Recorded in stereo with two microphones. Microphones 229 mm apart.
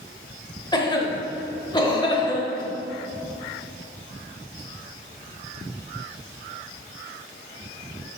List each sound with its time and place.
0.7 s a cough: 20° left (ahead or behind), 0.9 m